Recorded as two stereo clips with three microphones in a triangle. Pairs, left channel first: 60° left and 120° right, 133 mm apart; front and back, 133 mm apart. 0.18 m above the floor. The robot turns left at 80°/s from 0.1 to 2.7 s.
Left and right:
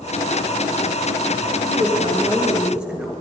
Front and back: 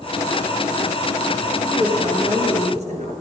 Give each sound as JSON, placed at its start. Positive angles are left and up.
{"t": 1.6, "sound": "a woman speaking", "azimuth_deg": -120, "distance_m": 3.0}